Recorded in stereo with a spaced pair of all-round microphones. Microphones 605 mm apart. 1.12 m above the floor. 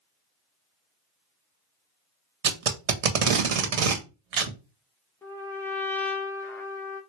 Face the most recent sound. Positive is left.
turn(degrees=5)  # may be behind; listen again after turning